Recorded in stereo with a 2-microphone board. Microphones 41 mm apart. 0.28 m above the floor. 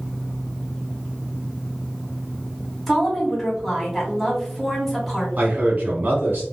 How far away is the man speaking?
About 1.8 m.